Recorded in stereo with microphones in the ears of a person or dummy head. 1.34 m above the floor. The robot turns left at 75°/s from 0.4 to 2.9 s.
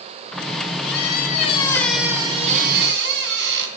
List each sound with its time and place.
0.8 s a squeak: 85° left, 3 m; by 3.7 s 70° right, 3 m